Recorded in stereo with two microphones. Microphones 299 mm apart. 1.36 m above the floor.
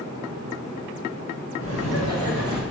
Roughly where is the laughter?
Left.